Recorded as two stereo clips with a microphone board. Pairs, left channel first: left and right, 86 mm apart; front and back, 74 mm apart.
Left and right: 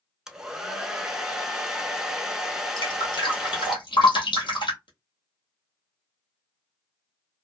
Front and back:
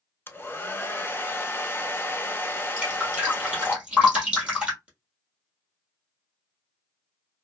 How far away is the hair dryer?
About 0.6 m.